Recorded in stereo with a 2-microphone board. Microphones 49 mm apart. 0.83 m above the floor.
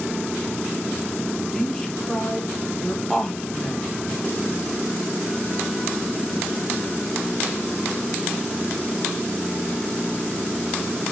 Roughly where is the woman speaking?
Centre.